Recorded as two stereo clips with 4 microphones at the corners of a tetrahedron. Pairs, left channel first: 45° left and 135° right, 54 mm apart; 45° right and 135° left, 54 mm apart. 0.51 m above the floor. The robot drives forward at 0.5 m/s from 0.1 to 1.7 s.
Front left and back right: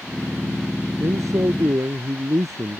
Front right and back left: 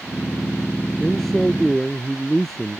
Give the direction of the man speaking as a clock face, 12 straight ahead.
4 o'clock.